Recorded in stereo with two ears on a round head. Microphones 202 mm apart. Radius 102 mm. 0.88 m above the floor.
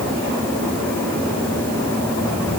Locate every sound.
Only background noise.